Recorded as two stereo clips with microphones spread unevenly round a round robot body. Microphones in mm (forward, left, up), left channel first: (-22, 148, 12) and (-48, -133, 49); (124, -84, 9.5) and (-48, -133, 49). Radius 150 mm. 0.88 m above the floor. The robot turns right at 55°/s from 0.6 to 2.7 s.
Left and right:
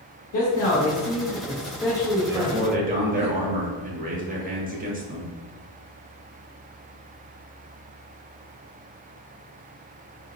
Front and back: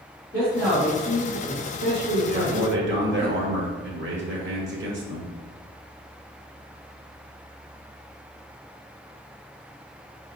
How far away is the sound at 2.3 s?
About 1.2 m.